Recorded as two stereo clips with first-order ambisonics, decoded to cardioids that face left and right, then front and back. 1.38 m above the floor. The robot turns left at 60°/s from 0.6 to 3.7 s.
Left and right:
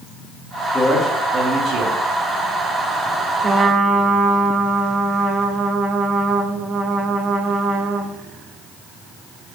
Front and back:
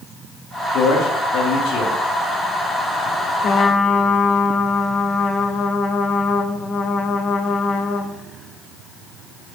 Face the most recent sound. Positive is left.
turn(degrees=-45)